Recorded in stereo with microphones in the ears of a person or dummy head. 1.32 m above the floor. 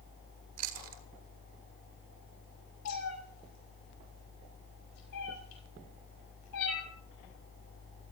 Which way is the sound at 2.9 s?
85° left.